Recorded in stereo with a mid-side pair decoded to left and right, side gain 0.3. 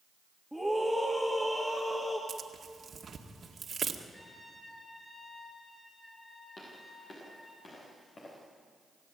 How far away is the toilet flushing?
No toilet flushing in this recording.